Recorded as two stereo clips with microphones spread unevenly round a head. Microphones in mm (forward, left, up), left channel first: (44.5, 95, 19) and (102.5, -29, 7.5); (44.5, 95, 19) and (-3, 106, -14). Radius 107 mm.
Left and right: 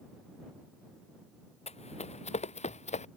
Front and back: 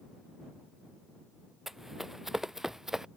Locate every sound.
1.7 s running footsteps: 75° left; by 3.1 s 80° left